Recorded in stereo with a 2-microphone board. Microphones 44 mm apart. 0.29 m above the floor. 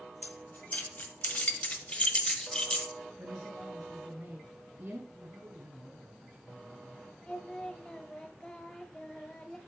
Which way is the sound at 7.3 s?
20° left (ahead or behind).